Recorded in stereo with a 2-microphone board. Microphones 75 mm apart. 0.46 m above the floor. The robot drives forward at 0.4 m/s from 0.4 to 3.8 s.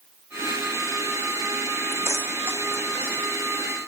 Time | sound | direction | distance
1.9 | keys jangling | 35° right (ahead or behind) | ?